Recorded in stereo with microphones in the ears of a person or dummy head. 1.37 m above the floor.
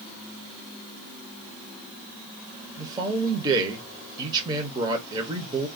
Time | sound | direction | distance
2.8 | a man speaking | 20° right (ahead or behind) | 0.8 m